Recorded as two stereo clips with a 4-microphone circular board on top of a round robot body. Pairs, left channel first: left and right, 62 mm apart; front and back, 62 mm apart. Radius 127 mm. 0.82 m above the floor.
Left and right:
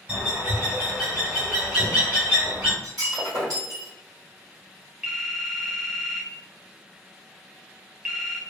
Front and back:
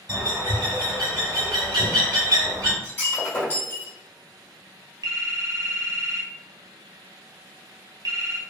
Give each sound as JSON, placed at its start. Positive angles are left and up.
{"t": 0.1, "sound": "a bird", "azimuth_deg": -165, "distance_m": 1.2}
{"t": 2.8, "sound": "breaking glass", "azimuth_deg": -60, "distance_m": 1.7}
{"t": 5.0, "sound": "a phone ringing", "azimuth_deg": -170, "distance_m": 0.7}